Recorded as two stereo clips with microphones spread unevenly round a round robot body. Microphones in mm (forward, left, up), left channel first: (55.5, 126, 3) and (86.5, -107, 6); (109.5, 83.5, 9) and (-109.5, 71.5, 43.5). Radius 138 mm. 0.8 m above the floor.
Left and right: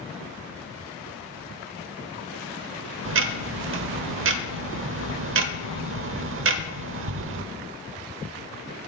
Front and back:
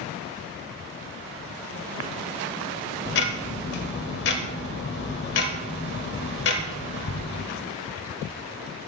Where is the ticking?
55° right, 0.9 m.